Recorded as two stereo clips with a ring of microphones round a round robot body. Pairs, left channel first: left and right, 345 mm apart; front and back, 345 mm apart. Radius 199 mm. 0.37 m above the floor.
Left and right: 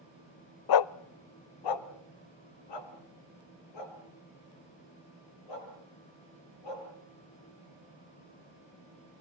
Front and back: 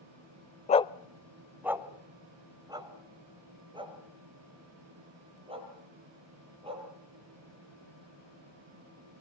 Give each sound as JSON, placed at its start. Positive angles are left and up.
{"t": 0.7, "sound": "a dog barking", "azimuth_deg": 70, "distance_m": 0.6}